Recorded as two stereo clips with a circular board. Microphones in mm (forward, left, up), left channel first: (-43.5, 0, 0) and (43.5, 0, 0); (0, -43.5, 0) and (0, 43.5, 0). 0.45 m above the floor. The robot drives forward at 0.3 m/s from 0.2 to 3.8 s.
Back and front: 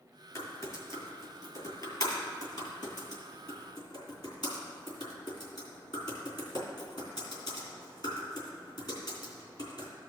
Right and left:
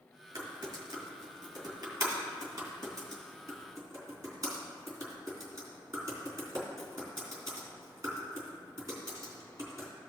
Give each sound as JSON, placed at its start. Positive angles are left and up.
{"t": 0.3, "sound": "typing on a keyboard", "azimuth_deg": 130, "distance_m": 2.5}